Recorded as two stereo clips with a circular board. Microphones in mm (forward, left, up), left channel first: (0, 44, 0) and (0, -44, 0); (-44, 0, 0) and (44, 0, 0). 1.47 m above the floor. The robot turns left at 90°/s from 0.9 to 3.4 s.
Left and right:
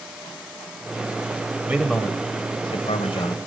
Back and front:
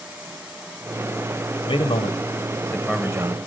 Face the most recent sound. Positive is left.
turn(degrees=35)